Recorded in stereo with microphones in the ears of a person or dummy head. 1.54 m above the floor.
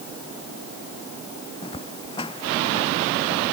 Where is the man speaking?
No man speaking in this recording.